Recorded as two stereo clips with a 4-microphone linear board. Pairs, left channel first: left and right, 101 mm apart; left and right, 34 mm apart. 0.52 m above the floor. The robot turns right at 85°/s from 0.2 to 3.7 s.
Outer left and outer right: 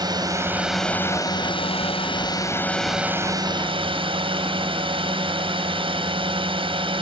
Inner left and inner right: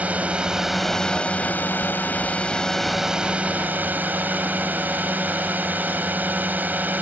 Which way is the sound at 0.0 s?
45° right.